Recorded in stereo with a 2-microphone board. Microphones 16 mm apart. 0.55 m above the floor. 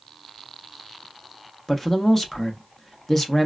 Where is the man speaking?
20° left (ahead or behind), 0.7 m.